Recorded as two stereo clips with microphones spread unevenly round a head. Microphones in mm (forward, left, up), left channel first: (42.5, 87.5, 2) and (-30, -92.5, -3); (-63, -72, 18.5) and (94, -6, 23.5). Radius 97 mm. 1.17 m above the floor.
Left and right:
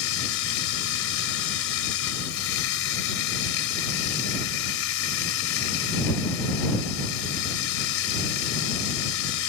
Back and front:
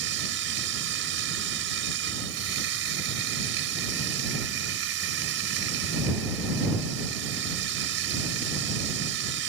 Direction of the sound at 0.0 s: 50° left.